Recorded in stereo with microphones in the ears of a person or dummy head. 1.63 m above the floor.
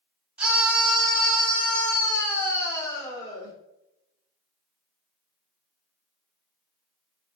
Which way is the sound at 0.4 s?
5° right (ahead or behind).